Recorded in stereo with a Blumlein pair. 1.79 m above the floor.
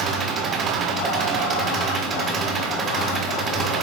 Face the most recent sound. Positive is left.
turn(degrees=-25)